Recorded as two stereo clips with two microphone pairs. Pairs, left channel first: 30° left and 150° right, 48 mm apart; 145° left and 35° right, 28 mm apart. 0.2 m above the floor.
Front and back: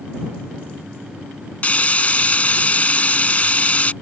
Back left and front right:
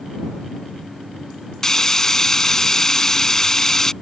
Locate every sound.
1.6 s frying: 80° left